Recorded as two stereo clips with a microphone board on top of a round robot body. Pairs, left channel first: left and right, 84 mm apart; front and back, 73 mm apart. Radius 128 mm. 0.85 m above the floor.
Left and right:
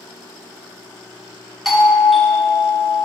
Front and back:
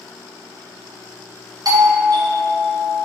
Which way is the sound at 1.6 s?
Straight behind.